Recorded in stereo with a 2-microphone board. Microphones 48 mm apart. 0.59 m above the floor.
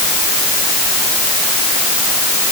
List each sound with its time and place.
Only background noise.